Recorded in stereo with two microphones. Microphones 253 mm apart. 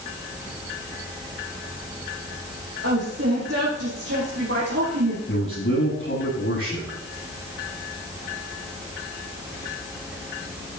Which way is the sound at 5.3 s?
55° left (ahead or behind).